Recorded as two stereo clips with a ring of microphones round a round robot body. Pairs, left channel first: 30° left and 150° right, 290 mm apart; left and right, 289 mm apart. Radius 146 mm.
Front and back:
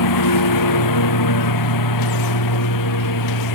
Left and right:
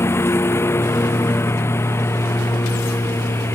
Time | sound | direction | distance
0.0 | a lawn mower | 10° left | ?